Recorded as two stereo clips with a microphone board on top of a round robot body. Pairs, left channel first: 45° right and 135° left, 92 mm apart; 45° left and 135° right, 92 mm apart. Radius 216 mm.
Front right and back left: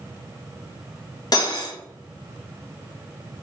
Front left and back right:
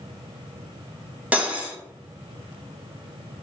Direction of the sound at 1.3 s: 65° right.